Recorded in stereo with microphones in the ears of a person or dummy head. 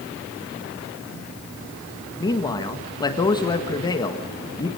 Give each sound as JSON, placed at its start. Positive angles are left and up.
{"t": 2.2, "sound": "a man speaking", "side_deg": 20, "distance_m": 1.7}